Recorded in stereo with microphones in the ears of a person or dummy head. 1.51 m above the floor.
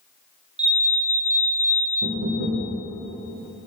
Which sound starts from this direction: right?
Knocking, at 2.0 s.